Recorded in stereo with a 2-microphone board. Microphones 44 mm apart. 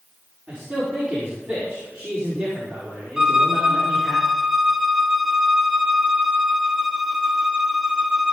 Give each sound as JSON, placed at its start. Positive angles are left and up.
{"t": 0.5, "sound": "a man speaking", "side_deg": -30, "distance_m": 4.5}
{"t": 3.2, "sound": "a violin", "side_deg": -15, "distance_m": 0.8}